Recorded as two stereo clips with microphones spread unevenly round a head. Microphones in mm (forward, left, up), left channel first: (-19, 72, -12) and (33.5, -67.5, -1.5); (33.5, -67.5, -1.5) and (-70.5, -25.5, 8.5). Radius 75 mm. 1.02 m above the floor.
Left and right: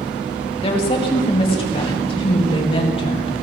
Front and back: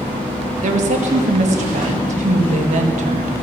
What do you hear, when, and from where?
0.6 s a woman speaking: 165° left, 1.5 m